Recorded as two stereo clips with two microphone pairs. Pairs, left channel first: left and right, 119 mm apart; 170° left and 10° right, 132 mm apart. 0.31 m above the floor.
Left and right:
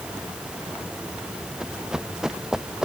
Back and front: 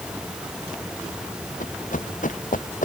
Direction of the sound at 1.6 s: 175° right.